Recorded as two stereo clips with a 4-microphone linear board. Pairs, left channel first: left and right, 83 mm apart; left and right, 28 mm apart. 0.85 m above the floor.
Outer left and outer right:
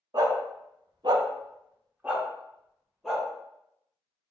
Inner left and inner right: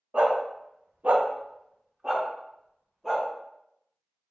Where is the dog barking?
55° right (ahead or behind), 0.8 m; by 3.2 s 5° left (ahead or behind), 1.4 m.